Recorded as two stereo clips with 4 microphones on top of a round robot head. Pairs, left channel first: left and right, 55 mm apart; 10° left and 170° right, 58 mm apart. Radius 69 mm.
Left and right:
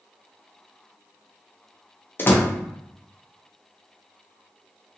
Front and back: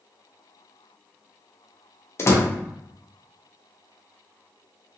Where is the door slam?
45° left, 0.7 m.